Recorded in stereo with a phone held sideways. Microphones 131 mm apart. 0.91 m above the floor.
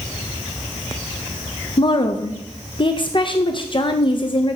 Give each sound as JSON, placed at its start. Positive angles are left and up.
{"t": 1.8, "sound": "a woman speaking", "side_deg": 40, "distance_m": 0.6}